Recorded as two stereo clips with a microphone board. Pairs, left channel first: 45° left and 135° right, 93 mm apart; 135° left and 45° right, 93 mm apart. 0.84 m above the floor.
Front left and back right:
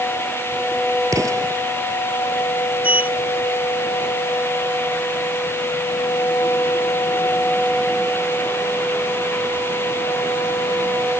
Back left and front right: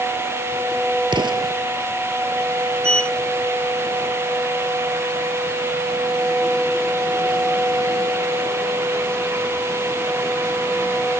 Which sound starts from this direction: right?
An explosion, at 1.1 s.